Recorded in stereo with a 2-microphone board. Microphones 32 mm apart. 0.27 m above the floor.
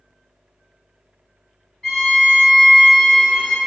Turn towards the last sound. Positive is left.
turn(degrees=20)  # may be behind; listen again after turning